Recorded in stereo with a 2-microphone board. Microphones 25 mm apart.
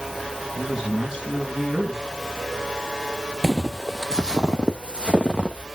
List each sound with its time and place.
0.6 s a man speaking: 15° right (ahead or behind), 5 m
3.4 s footsteps: 15° left (ahead or behind), 0.5 m; by 5.7 s 45° right (ahead or behind), 1.7 m